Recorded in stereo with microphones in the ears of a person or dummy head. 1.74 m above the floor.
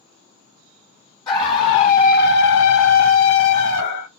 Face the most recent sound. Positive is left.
turn(degrees=60)  # may be behind; listen again after turning